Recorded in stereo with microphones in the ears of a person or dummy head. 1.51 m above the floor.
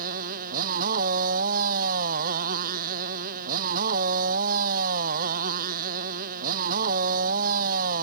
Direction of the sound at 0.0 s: 45° right (ahead or behind).